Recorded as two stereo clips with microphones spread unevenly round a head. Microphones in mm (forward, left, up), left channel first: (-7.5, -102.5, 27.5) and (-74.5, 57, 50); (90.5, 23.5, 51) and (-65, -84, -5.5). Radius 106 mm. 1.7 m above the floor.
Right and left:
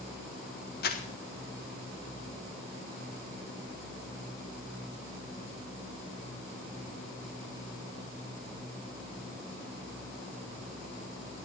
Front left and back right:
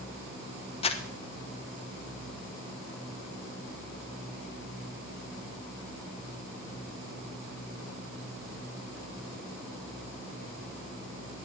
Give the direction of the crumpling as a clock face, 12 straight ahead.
1 o'clock.